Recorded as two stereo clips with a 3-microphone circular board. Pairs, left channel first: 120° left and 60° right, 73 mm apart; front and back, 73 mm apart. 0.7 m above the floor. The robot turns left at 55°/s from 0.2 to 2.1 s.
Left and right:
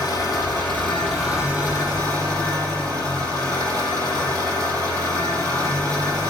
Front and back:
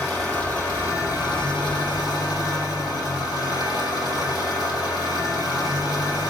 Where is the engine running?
85° left, 6 m; by 6.3 s 20° right, 6 m.